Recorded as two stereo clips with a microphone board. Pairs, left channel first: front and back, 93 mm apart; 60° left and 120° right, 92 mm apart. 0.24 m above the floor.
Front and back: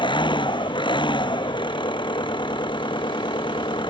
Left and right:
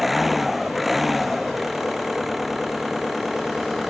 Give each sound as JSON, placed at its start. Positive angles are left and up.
{"t": 0.0, "sound": "an engine running", "azimuth_deg": -30}